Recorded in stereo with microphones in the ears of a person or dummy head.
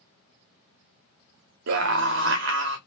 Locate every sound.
1.7 s a scream: 65° right (ahead or behind), 0.9 m